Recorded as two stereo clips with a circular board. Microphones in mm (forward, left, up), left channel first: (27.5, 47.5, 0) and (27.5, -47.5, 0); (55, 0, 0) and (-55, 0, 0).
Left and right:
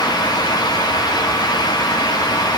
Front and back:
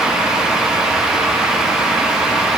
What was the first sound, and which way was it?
Only background noise.